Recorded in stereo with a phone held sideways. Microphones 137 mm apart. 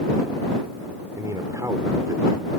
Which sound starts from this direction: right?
A man speaking, at 1.2 s.